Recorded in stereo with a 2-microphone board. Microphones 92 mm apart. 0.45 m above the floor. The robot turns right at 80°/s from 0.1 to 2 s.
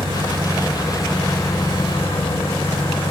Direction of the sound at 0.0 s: 75° right.